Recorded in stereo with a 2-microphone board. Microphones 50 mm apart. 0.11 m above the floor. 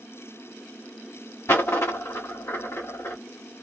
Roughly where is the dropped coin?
Left.